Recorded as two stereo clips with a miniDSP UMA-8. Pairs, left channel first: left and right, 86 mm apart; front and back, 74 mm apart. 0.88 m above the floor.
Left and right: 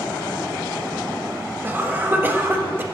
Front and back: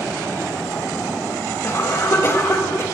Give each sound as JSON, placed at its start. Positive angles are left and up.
{"t": 1.6, "sound": "a cough", "azimuth_deg": -35, "distance_m": 1.2}